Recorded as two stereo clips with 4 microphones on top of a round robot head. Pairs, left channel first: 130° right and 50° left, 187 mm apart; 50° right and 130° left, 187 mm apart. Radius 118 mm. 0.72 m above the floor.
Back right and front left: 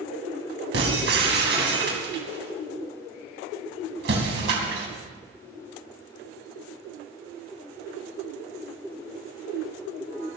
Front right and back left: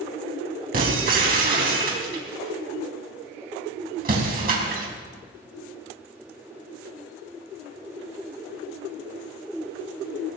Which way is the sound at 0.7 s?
85° left.